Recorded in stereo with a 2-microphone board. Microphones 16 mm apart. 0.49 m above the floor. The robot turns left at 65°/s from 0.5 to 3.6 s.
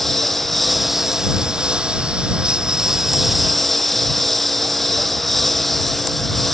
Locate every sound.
0.0 s a lawn mower: 15° left; by 6.5 s 175° left